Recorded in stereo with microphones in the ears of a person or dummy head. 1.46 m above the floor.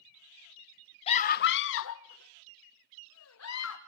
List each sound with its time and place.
1.1 s a scream: 40° left (ahead or behind), 0.6 m; by 3.8 s 80° left, 2.5 m